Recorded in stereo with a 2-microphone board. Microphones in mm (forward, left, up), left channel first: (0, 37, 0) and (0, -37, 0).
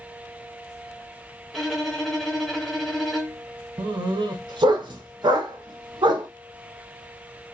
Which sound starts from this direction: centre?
A violin, at 1.5 s.